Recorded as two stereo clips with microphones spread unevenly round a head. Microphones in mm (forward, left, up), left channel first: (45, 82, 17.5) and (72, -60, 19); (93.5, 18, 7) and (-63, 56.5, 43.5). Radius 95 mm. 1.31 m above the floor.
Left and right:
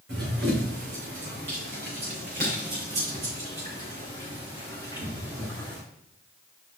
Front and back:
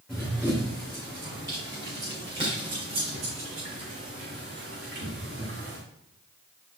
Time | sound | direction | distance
0.1 | running footsteps | 115° right | 4 m